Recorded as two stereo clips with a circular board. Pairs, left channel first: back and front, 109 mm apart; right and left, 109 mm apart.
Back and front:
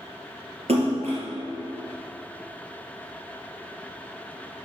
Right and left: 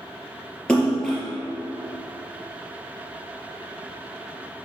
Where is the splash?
10° right, 2.5 m.